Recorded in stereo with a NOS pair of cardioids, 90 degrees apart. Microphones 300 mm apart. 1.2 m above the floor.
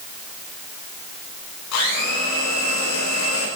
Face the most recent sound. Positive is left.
turn(degrees=60)